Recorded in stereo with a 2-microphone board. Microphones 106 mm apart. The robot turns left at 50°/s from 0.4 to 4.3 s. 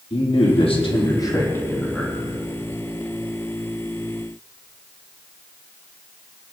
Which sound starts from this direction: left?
A man speaking, at 0.1 s.